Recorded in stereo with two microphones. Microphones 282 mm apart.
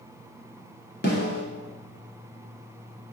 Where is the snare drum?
35° left (ahead or behind), 1.1 m.